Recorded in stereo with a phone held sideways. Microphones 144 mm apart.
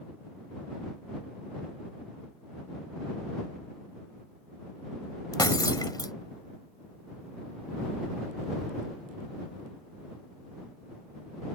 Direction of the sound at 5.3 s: 25° left (ahead or behind).